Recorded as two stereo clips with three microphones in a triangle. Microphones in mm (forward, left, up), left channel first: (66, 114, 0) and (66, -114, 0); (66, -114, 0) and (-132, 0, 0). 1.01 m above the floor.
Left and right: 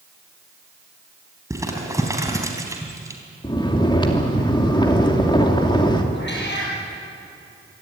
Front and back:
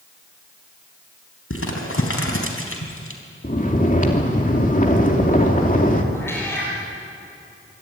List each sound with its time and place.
1.5 s crumpling: 15° right, 4 m
3.4 s snoring: 20° left, 2.5 m
6.1 s a cat meowing: 50° left, 8.5 m